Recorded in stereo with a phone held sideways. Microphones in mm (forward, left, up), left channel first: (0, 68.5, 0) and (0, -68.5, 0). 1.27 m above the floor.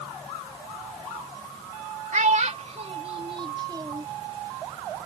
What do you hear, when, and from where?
2.1 s a child speaking: 65° right (ahead or behind); by 4.1 s 25° right (ahead or behind)